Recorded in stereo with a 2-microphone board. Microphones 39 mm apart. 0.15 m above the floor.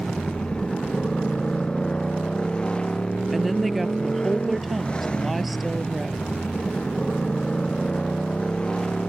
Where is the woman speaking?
Centre (ahead or behind).